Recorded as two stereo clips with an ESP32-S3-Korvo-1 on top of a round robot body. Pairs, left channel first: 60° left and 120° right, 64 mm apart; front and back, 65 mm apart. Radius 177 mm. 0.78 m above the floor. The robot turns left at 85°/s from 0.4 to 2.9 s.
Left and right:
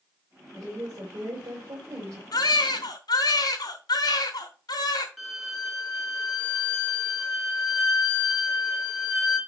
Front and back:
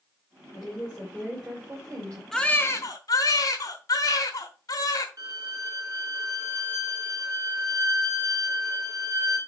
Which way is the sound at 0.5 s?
30° right.